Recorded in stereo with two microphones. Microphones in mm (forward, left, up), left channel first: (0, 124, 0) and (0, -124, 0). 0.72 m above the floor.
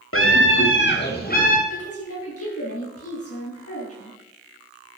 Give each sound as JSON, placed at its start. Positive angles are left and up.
{"t": 0.1, "sound": "a scream", "side_deg": 60, "distance_m": 2.0}
{"t": 1.7, "sound": "a woman speaking", "side_deg": 70, "distance_m": 6.5}